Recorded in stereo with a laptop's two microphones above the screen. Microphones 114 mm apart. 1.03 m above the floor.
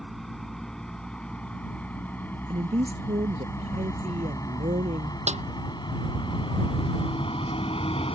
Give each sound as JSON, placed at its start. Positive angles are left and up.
{"t": 0.0, "sound": "a vehicle", "side_deg": 0}
{"t": 2.5, "sound": "a woman speaking", "side_deg": -70}
{"t": 5.3, "sound": "a snare drum", "side_deg": -85}